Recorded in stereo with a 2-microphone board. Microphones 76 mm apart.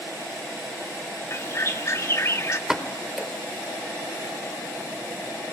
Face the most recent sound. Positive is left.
turn(degrees=-5)  # may be behind; listen again after turning